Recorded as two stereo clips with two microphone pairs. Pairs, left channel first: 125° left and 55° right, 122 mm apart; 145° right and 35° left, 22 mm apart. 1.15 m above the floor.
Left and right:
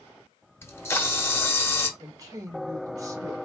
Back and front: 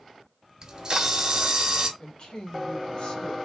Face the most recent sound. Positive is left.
turn(degrees=-115)